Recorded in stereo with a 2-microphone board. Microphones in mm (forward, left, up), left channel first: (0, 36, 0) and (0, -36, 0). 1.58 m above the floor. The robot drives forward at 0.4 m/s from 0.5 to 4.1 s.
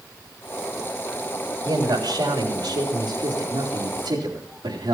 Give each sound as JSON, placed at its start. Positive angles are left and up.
{"t": 1.6, "sound": "a man speaking", "side_deg": -70, "distance_m": 3.0}